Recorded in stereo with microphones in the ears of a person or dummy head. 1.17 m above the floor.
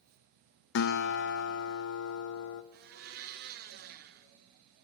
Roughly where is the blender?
Right.